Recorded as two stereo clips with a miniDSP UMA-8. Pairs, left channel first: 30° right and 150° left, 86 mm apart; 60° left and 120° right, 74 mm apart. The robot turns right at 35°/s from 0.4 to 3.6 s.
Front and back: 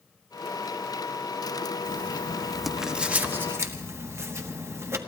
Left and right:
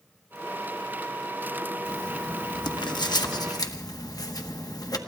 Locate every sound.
1.9 s writing: 30° left, 1.0 m; by 5.0 s 95° left, 1.0 m